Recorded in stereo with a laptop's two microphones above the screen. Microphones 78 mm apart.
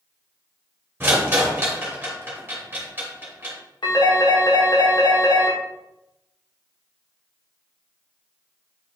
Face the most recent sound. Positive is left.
turn(degrees=75)  # may be behind; listen again after turning